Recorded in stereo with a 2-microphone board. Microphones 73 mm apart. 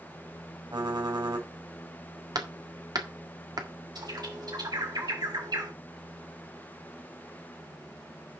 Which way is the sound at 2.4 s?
60° right (ahead or behind).